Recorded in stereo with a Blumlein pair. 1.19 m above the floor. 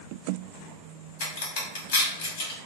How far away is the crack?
About 1.3 m.